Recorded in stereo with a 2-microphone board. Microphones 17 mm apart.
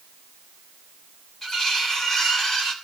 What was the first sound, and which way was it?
Cutlery clinking, 25° left (ahead or behind).